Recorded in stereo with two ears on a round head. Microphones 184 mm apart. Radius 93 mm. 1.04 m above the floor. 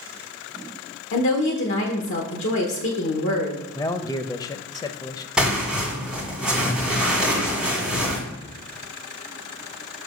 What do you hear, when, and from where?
1.1 s a woman speaking: 60° left (ahead or behind), 1.0 m
3.8 s a man speaking: 20° left (ahead or behind), 0.6 m
5.4 s tearing paper: 5° right (ahead or behind), 1.8 m